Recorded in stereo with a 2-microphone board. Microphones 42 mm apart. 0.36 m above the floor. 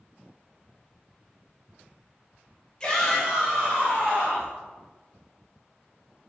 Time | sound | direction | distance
2.8 | a shout | 20° left (ahead or behind) | 1.2 m